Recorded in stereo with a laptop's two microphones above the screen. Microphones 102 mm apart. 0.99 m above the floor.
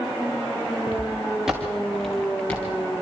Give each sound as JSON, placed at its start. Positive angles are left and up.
{"t": 0.9, "sound": "footsteps", "side_deg": -15, "distance_m": 4.5}